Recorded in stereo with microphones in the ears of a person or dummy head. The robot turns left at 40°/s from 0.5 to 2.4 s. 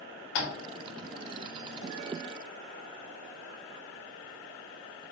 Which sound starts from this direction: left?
Tapping, at 0.3 s.